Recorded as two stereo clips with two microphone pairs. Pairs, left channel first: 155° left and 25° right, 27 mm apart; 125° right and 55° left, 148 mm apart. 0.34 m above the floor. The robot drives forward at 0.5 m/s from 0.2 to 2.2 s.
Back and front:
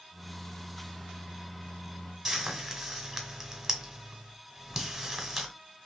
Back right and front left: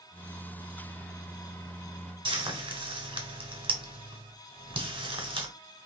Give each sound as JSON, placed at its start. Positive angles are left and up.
{"t": 2.2, "sound": "frying", "azimuth_deg": 50, "distance_m": 1.1}